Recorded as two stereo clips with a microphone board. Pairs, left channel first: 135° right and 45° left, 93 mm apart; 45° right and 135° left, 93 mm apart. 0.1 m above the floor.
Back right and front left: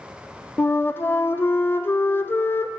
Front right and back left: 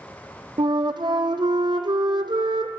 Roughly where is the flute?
Behind.